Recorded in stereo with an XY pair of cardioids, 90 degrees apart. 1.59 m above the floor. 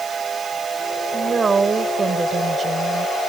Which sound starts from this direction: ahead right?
A woman speaking, at 1.1 s.